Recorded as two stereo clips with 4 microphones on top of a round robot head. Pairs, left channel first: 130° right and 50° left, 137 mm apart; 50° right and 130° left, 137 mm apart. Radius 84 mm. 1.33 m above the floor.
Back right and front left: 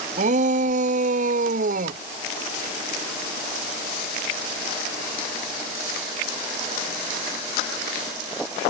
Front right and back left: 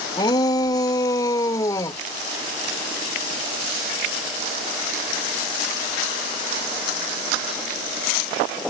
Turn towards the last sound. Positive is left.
turn(degrees=20)